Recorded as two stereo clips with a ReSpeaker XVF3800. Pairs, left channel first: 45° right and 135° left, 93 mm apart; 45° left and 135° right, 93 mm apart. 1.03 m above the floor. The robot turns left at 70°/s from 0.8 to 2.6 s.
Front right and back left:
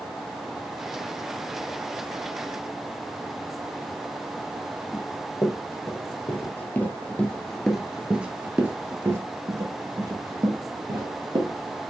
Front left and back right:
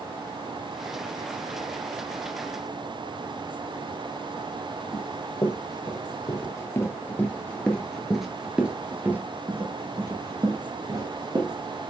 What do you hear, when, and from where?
4.9 s running footsteps: 5° left, 1.8 m; by 11.8 s 175° left, 2 m